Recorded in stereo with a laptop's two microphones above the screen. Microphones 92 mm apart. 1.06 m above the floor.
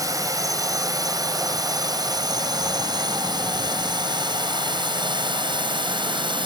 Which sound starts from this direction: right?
A drone, at 0.0 s.